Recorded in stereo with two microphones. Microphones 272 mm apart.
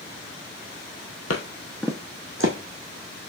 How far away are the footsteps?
About 0.8 m.